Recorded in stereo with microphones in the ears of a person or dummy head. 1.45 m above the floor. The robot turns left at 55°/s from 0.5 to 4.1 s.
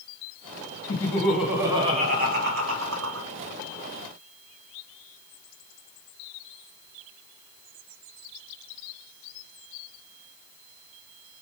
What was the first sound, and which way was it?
Laughter, 30° left.